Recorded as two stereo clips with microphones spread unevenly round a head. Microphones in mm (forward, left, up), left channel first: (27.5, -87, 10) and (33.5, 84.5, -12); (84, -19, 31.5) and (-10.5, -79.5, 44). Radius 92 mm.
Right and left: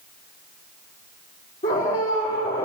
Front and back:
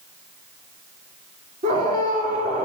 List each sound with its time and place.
1.6 s a scream: 145° right, 4 m